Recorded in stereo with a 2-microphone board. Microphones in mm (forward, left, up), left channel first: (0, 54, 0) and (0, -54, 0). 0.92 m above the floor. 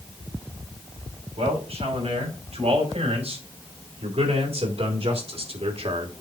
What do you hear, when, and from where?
1.4 s a man speaking: 70° right (ahead or behind), 5.5 m